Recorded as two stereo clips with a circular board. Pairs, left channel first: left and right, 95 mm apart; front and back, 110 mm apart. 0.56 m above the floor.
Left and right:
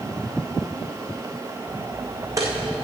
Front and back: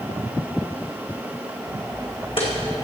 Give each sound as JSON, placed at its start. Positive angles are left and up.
{"t": 1.7, "sound": "footsteps", "azimuth_deg": -45, "distance_m": 1.9}